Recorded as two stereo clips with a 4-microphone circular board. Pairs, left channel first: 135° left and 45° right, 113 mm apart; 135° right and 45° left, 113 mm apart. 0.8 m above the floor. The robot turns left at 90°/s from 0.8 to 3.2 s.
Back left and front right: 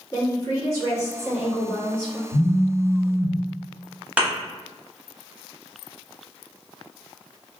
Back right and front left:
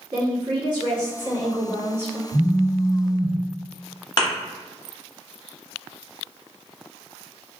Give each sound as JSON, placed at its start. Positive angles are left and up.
{"t": 0.1, "sound": "a woman speaking", "azimuth_deg": 85, "distance_m": 1.5}
{"t": 2.3, "sound": "a phone buzzing", "azimuth_deg": -70, "distance_m": 1.7}
{"t": 4.2, "sound": "a thud", "azimuth_deg": -115, "distance_m": 0.8}